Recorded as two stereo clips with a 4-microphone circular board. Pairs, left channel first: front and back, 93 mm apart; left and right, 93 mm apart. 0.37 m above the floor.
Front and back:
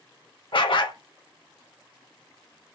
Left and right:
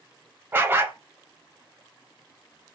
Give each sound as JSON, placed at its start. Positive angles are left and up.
{"t": 0.5, "sound": "a dog barking", "azimuth_deg": -25, "distance_m": 0.5}